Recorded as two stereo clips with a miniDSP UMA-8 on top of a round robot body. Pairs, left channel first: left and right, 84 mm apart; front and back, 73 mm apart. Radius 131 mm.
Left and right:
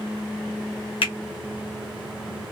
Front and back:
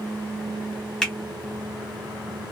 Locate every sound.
1.0 s a finger snap: 85° left, 1.4 m